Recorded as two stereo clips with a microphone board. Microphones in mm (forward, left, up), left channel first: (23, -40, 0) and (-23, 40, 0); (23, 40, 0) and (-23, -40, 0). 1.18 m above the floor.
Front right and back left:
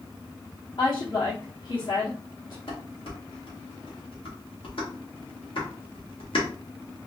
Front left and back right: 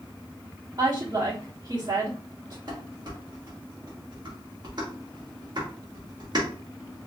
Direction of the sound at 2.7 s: 80° right.